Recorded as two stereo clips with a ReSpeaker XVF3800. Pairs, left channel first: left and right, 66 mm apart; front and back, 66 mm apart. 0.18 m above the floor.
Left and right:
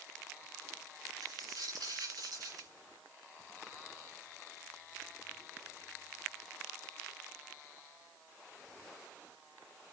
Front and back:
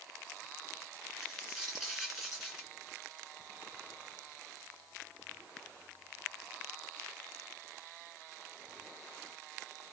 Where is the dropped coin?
90° right, 6.5 m.